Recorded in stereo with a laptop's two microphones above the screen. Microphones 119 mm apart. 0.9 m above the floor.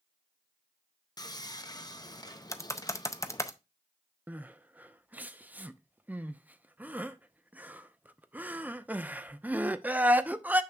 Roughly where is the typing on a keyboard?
Left.